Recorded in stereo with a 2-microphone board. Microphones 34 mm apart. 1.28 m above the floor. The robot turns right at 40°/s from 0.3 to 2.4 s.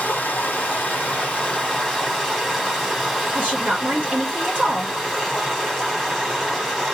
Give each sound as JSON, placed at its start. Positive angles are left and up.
{"t": 0.0, "sound": "running water", "azimuth_deg": 105, "distance_m": 2.5}
{"t": 3.4, "sound": "a woman speaking", "side_deg": -40, "distance_m": 2.5}